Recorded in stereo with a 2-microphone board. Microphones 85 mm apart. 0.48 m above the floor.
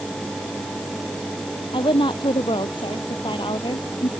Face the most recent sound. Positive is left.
turn(degrees=70)  # may be behind; listen again after turning